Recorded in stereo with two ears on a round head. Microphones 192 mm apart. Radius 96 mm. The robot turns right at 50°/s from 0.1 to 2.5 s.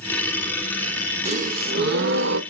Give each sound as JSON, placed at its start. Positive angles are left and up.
{"t": 1.2, "sound": "a gasp", "azimuth_deg": -145, "distance_m": 1.1}